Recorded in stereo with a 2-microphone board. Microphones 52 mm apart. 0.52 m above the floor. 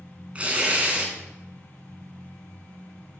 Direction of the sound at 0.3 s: 25° right (ahead or behind).